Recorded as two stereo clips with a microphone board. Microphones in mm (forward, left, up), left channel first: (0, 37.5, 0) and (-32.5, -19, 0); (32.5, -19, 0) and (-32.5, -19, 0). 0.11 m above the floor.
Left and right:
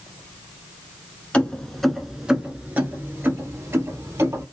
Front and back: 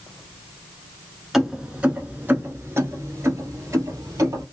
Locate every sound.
1.3 s keys jangling: 100° left, 0.9 m; by 4.4 s 155° right, 1.8 m